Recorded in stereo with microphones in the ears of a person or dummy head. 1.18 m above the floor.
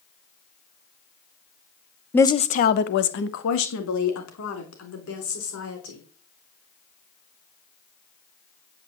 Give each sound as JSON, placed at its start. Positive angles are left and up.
{"t": 2.1, "sound": "a woman speaking", "side_deg": 10, "distance_m": 0.7}